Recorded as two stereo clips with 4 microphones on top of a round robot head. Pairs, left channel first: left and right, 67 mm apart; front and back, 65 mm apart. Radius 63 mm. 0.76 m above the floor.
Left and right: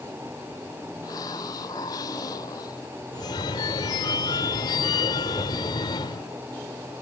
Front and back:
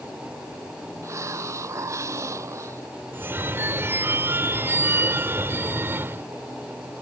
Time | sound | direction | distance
1.0 | a hiss | 140° left | ?
3.1 | a phone ringing | 125° left | ?